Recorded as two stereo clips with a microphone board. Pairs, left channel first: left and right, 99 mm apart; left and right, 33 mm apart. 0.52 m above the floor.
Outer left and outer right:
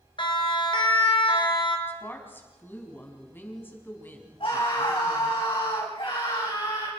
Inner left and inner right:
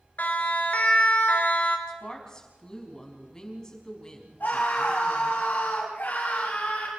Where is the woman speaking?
20° left (ahead or behind), 4.5 m.